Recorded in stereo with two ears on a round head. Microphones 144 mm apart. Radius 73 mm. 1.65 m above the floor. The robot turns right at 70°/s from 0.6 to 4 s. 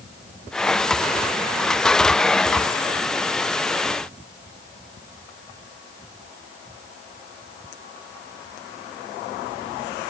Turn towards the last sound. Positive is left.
No sound to turn to.